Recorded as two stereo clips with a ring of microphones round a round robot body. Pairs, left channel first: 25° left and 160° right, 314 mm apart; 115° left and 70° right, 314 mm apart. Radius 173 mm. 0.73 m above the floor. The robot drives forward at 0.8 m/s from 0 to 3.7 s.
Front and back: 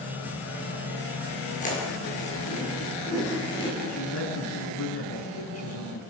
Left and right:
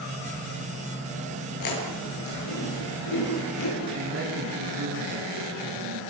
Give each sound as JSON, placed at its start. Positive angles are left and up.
{"t": 1.6, "sound": "chewing", "azimuth_deg": 90, "distance_m": 10.0}
{"t": 3.9, "sound": "a woman speaking", "azimuth_deg": -20, "distance_m": 9.0}